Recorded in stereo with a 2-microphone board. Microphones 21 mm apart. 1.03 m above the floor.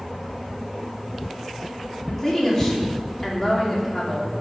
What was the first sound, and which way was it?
A woman speaking, 15° left (ahead or behind).